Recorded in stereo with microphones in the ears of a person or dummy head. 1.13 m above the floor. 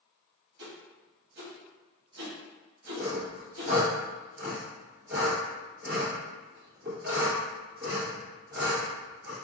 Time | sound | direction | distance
0.6 | a whoosh | 75° right (ahead or behind) | 1.1 m
3.0 | sawing | 50° right (ahead or behind) | 1.8 m